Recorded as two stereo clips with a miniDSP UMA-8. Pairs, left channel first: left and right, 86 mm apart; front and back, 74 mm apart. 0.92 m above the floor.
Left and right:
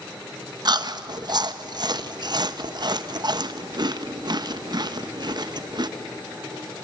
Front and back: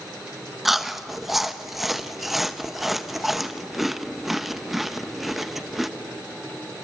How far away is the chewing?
About 0.9 m.